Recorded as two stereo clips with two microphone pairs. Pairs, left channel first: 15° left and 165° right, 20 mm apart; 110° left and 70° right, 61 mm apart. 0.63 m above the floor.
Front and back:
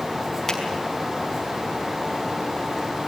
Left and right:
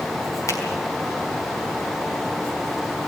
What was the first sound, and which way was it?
A finger snap, 80° left.